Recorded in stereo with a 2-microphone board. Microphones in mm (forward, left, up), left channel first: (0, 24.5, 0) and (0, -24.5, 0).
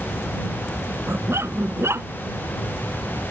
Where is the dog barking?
60° right (ahead or behind).